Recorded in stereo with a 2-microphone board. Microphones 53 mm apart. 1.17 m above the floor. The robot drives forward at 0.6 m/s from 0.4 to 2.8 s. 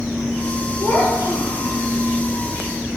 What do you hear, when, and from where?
0.8 s a child speaking: 80° left, 4 m; by 1.8 s 85° left, 4 m